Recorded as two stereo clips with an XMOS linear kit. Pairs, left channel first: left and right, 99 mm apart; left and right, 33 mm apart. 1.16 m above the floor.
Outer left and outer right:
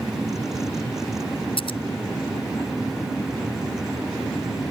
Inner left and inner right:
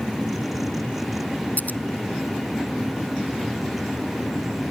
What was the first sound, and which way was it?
Scissors, 60° left (ahead or behind).